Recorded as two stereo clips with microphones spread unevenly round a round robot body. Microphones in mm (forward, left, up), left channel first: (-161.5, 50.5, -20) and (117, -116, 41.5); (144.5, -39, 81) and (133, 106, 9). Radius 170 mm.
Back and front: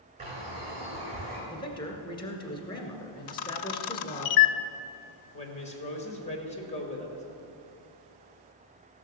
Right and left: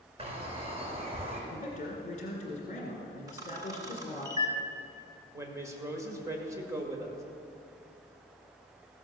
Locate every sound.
0.2 s a bird: 40° left, 5.5 m
1.5 s a man speaking: 150° right, 1.8 m
3.3 s a camera shutter: 150° left, 0.5 m
5.3 s a woman speaking: 100° left, 1.8 m